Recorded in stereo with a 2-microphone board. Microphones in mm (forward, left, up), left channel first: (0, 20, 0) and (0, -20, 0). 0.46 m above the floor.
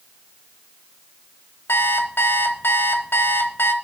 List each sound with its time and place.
1.7 s an alarm clock: 65° left (ahead or behind), 1.0 m